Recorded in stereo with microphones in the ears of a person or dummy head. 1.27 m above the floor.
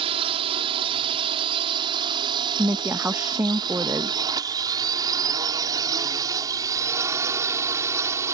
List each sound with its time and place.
0.0 s a drone: 30° right (ahead or behind); by 8.4 s 15° right (ahead or behind)
2.6 s a woman speaking: 10° right (ahead or behind)